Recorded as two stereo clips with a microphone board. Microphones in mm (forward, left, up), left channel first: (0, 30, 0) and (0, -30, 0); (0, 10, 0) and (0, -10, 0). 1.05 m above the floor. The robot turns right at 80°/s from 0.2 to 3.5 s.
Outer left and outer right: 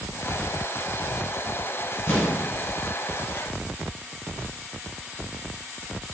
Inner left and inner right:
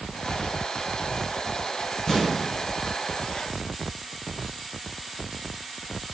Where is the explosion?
120° left, 1.1 m; by 2.4 s 150° left, 1.1 m.